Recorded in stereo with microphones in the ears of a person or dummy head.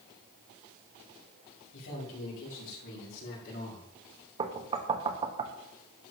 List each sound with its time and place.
1.7 s a man speaking: 70° left (ahead or behind), 6 m; by 3.9 s 50° left (ahead or behind), 5 m
4.4 s knocking: 30° right (ahead or behind), 1.5 m